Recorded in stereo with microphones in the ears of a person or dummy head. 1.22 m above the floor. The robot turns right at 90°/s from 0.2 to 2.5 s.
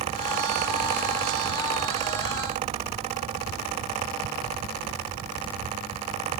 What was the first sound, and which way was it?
Only background noise.